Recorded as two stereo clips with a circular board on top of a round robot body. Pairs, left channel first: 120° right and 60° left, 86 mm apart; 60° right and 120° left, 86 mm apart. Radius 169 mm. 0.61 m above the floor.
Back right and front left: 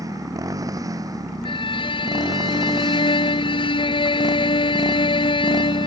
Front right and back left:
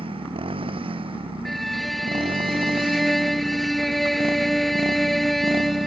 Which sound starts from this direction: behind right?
A violin, at 1.4 s.